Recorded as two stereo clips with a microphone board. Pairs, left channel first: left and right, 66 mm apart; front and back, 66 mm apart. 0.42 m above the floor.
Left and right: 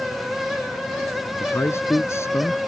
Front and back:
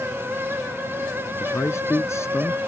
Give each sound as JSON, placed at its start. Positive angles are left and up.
{"t": 1.4, "sound": "a man speaking", "azimuth_deg": 45}